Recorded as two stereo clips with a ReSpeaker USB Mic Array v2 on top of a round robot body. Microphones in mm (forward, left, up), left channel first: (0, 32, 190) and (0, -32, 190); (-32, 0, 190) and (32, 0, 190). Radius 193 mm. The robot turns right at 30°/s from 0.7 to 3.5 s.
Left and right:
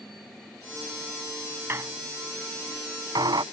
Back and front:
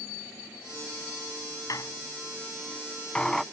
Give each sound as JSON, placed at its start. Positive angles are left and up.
{"t": 1.7, "sound": "a squeak", "azimuth_deg": -145}